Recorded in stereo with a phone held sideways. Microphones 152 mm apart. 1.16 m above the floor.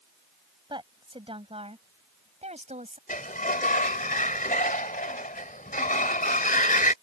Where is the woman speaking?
30° right (ahead or behind); by 3.0 s 50° right (ahead or behind).